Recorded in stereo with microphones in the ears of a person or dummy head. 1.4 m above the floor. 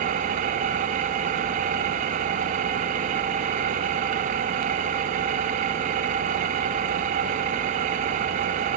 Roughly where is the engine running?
Right.